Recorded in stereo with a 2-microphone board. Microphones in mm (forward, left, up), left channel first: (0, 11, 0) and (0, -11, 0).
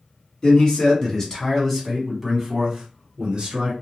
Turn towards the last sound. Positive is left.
turn(degrees=-45)  # may be behind; listen again after turning